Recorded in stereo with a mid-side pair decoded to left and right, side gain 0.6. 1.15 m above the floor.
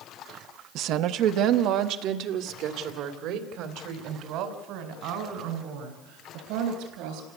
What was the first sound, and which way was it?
A woman speaking, 65° right.